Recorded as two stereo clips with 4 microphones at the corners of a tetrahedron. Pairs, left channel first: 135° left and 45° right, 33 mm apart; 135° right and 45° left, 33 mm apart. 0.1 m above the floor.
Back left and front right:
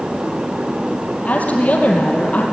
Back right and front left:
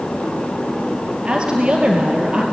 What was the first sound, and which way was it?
A woman speaking, 100° left.